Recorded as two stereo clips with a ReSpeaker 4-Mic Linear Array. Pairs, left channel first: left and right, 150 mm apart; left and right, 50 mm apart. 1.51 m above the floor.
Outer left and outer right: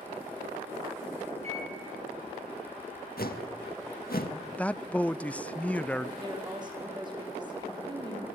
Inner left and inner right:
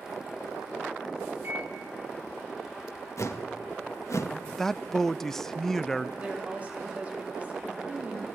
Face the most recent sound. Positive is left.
turn(degrees=-30)  # may be behind; listen again after turning